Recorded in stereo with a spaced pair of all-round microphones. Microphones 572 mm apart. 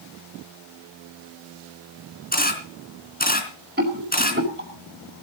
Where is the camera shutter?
15° left (ahead or behind), 3.5 m.